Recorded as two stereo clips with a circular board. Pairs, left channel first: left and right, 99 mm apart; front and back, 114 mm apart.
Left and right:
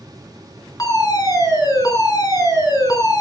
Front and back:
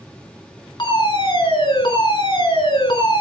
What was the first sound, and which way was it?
A fire alarm, 45° left.